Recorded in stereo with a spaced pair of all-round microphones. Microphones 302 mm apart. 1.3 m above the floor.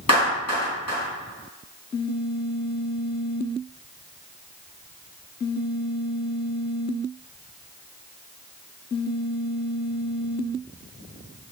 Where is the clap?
55° left (ahead or behind), 2.5 m.